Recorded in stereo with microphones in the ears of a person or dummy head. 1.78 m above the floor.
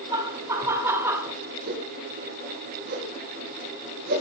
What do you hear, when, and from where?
0.1 s laughter: 10° right (ahead or behind), 2.5 m; by 1.3 s 5° right (ahead or behind), 1.7 m
1.7 s a whoosh: 45° right (ahead or behind), 4 m